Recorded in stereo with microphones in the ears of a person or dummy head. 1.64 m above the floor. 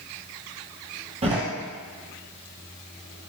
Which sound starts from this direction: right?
A door slam, at 1.2 s.